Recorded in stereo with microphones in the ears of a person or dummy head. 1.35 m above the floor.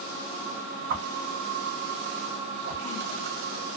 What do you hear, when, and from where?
0.9 s a whoosh: 45° right (ahead or behind), 0.7 m